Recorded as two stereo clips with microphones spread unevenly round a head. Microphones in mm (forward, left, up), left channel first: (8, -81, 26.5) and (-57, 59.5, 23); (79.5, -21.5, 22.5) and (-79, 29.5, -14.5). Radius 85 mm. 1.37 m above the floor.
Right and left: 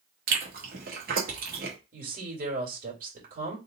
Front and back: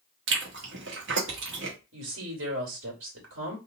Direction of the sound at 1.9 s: 150° left.